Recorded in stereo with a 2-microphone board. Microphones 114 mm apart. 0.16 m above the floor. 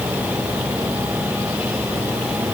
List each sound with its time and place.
Only background noise.